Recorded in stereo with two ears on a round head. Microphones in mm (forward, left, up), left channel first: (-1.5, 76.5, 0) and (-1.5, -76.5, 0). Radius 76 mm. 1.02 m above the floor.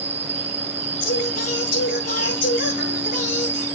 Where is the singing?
50° left (ahead or behind), 6.5 m.